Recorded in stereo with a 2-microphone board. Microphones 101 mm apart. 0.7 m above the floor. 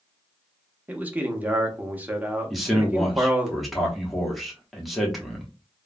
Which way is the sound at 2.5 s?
Centre (ahead or behind).